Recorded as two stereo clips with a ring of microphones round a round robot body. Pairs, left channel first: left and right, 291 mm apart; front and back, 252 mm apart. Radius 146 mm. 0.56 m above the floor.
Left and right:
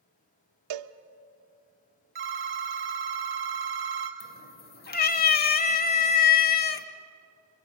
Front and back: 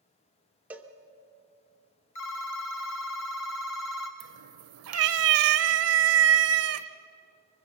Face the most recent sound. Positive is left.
turn(degrees=150)